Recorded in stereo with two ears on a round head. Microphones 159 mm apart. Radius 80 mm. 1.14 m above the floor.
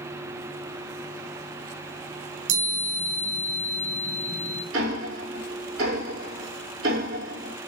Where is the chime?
70° right (ahead or behind), 6 m.